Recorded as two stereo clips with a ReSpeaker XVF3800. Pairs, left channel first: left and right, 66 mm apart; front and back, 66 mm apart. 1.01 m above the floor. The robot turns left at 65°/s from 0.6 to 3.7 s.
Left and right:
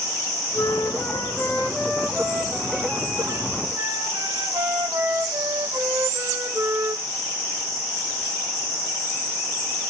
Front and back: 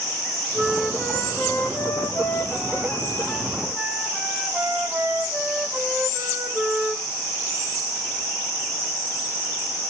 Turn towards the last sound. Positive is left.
turn(degrees=-105)